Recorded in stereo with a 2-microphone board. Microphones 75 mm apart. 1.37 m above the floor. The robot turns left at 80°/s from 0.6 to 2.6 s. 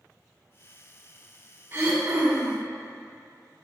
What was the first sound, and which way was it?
Throat clearing, 50° right.